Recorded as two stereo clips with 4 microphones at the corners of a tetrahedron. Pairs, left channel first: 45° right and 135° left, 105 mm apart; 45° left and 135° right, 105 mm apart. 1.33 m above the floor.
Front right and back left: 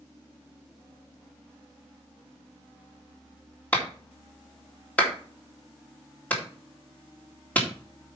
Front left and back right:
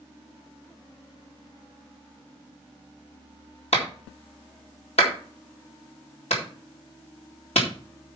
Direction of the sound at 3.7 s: 30° left.